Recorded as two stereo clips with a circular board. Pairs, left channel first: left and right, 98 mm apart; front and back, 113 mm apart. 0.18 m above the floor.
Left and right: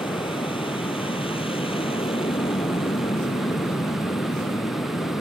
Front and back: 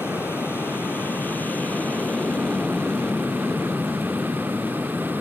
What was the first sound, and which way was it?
An aircraft, 70° left.